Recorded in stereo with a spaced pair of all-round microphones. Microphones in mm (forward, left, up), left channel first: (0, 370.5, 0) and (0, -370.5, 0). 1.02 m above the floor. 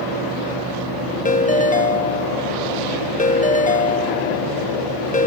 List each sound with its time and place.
1.2 s a ringtone: 10° left (ahead or behind), 0.5 m